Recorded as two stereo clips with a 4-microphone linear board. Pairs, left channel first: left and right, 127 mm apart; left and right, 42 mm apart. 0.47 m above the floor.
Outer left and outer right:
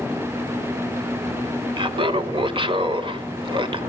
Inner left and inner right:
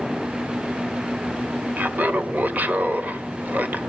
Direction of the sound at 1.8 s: 40° right (ahead or behind).